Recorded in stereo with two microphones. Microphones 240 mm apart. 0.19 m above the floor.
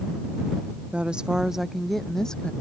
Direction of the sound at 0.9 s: 5° right (ahead or behind).